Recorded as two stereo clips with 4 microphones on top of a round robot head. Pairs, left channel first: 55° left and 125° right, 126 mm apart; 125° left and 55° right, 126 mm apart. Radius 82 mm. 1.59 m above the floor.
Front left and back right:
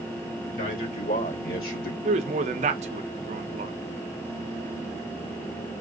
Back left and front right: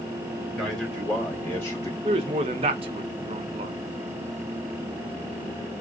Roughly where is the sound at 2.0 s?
Right.